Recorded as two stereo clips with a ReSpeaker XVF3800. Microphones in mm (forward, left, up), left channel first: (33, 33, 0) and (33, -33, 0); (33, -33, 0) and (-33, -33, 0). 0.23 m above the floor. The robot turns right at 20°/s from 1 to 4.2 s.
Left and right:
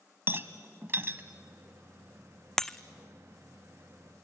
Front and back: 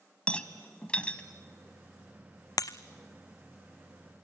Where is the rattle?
65° right, 1.2 m; by 1.2 s 60° right, 1.2 m.